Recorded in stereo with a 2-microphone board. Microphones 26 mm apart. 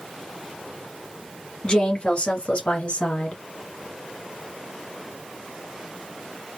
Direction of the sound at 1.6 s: 35° left (ahead or behind).